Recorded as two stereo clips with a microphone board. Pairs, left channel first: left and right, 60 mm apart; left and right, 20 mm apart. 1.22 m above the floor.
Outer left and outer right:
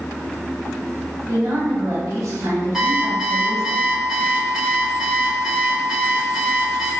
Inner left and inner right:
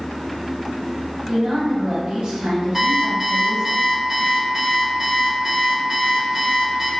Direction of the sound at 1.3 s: 60° right (ahead or behind).